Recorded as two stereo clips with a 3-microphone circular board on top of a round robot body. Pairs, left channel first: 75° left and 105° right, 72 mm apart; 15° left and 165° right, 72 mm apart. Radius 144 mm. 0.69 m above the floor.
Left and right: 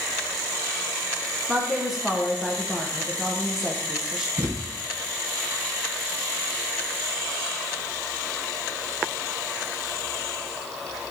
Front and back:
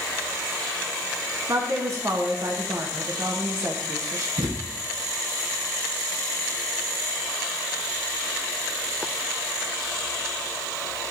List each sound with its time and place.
1.5 s a woman speaking: 170° left, 1.2 m
4.4 s a thud: 155° right, 2.0 m